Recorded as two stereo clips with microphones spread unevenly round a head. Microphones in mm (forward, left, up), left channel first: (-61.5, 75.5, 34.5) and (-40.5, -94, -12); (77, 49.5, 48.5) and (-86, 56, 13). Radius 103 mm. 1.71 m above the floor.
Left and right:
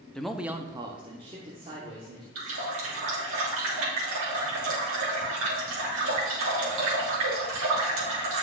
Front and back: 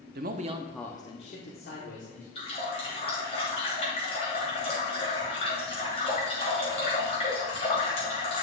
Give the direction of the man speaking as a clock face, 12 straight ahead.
7 o'clock.